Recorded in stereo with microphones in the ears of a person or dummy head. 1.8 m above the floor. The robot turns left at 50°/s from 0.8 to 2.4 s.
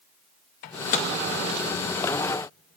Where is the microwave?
40° left (ahead or behind), 0.6 m; by 1.1 s 35° left (ahead or behind), 0.6 m.